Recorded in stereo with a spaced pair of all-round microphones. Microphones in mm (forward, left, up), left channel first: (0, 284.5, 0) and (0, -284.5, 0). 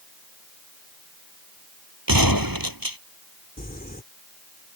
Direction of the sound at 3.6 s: 15° left (ahead or behind).